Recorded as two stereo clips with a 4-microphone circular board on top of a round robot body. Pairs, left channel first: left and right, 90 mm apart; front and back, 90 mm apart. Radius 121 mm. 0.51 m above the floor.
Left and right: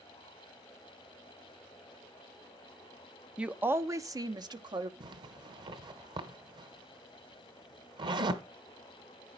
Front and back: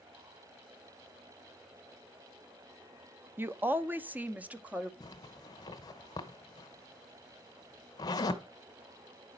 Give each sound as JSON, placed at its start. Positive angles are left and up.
{"t": 3.4, "sound": "a woman speaking", "azimuth_deg": -155, "distance_m": 0.7}
{"t": 5.0, "sound": "a zipper", "azimuth_deg": -50, "distance_m": 0.9}